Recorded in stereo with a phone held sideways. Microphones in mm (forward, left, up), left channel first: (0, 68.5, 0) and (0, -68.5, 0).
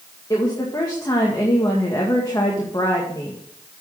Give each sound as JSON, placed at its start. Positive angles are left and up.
{"t": 0.3, "sound": "a woman speaking", "side_deg": 25, "distance_m": 1.9}